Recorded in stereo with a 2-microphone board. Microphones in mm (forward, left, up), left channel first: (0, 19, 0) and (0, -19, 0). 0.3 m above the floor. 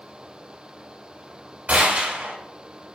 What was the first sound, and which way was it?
A gunshot, 45° right (ahead or behind).